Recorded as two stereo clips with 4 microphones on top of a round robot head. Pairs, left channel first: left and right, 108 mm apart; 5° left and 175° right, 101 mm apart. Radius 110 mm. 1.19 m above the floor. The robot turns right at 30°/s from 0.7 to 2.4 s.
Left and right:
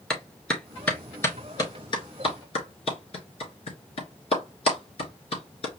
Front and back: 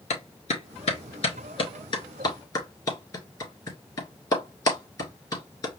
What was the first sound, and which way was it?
A clap, 5° left.